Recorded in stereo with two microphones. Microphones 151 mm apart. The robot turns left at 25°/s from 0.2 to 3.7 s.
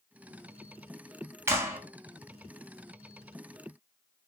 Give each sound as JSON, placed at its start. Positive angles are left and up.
{"t": 1.5, "sound": "a clap", "side_deg": -15, "distance_m": 0.6}